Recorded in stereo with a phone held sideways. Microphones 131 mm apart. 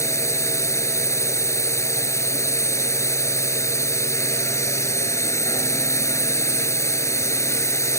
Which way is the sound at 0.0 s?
20° left (ahead or behind).